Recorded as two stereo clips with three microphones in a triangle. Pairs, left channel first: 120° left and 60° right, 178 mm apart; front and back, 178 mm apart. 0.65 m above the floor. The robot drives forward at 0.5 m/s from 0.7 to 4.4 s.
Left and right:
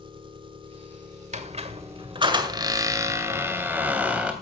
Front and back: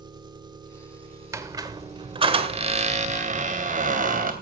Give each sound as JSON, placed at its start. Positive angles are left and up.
{"t": 0.0, "sound": "an engine running", "azimuth_deg": -115, "distance_m": 1.7}
{"t": 1.3, "sound": "a squeak", "azimuth_deg": -105, "distance_m": 1.5}